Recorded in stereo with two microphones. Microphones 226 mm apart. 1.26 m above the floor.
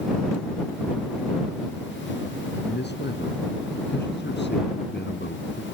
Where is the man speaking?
50° left (ahead or behind).